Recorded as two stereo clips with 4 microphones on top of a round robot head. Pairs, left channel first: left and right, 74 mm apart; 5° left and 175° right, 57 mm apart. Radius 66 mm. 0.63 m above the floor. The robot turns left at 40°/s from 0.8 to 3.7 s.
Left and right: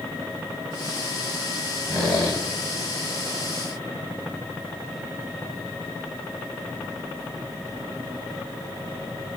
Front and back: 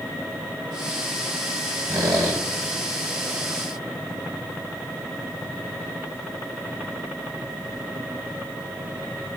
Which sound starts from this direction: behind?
A squeak, at 1.9 s.